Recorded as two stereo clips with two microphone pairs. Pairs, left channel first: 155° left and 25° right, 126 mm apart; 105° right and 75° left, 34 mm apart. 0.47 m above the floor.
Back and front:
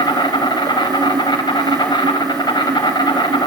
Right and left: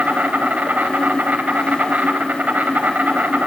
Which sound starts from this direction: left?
An insect, at 0.0 s.